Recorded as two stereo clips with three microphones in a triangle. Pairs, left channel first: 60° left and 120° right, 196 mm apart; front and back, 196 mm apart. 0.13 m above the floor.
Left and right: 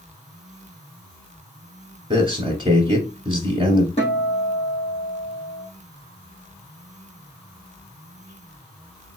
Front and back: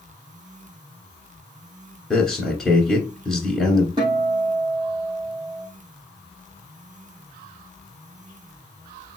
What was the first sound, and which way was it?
A man speaking, 90° right.